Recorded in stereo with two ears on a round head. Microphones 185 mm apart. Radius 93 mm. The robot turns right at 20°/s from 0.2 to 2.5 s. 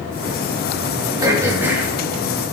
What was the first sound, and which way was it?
Throat clearing, 20° right (ahead or behind).